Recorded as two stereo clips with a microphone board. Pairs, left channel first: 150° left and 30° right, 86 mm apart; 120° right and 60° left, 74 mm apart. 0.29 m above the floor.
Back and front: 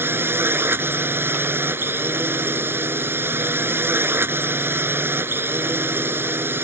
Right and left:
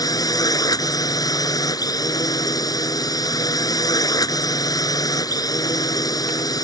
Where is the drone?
95° right.